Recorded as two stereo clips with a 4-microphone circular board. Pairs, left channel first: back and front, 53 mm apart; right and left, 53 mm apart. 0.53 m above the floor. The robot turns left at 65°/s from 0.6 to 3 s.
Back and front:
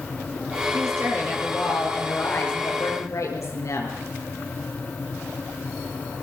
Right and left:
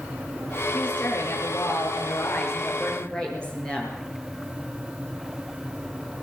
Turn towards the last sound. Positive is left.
turn(degrees=-165)